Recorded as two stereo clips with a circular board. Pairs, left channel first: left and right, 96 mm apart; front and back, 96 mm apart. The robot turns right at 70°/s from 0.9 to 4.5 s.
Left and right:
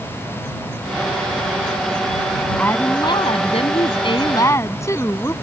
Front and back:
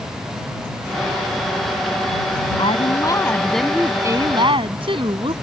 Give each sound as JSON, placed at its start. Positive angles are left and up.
{"t": 2.6, "sound": "a woman speaking", "azimuth_deg": 15}